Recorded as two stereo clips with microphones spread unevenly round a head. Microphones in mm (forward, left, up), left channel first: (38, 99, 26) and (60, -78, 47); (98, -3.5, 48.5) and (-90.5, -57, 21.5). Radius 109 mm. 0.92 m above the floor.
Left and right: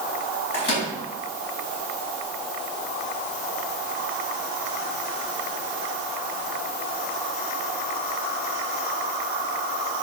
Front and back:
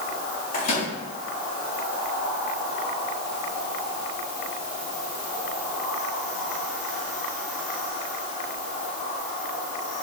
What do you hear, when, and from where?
0.5 s a microwave: 75° left, 4.5 m